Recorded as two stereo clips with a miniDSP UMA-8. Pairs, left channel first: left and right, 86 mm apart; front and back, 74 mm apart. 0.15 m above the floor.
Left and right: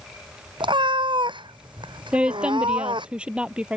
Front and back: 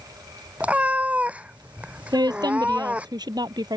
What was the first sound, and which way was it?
A cat meowing, 110° right.